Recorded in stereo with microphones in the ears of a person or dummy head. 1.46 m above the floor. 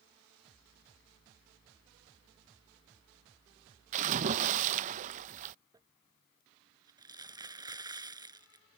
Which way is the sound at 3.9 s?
40° right (ahead or behind).